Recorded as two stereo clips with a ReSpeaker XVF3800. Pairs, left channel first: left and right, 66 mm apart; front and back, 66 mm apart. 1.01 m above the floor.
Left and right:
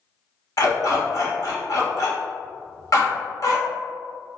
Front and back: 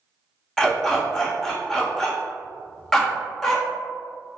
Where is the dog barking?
80° left, 0.9 m.